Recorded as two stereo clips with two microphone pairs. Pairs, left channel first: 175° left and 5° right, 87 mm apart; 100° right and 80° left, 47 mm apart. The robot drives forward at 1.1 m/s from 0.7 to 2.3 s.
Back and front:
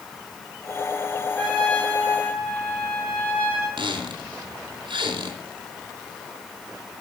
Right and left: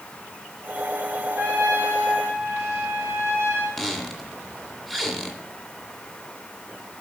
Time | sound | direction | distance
1.4 | a trumpet | 90° left | 4 m
3.8 | a squeak | 15° right | 1.9 m